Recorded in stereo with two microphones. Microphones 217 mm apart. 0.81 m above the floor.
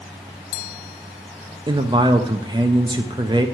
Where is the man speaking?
20° right (ahead or behind), 0.6 m.